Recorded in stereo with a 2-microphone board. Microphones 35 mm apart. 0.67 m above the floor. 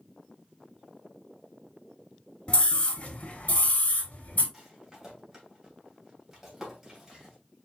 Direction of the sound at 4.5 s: 5° right (ahead or behind).